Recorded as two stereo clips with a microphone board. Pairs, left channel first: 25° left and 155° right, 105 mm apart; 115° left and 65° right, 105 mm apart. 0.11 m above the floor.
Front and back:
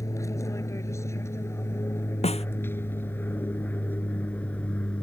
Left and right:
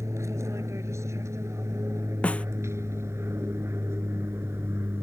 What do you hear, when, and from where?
0.0 s an aircraft: 20° right; by 5.0 s 40° right
2.2 s a snare drum: 35° left